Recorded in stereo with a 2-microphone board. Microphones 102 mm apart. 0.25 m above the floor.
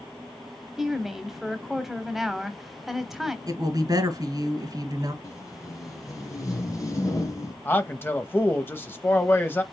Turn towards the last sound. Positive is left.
turn(degrees=20)  # may be behind; listen again after turning